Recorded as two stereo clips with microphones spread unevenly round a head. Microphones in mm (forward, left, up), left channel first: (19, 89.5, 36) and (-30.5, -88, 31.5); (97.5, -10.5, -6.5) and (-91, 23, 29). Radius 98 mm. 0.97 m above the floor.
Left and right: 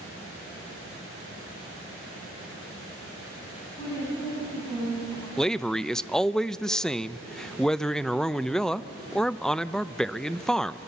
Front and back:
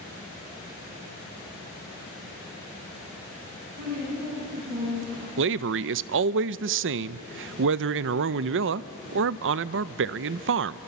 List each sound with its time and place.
3.8 s a woman speaking: 140° left, 9.5 m; by 5.3 s 150° left, 8 m
5.4 s a man speaking: 160° left, 0.5 m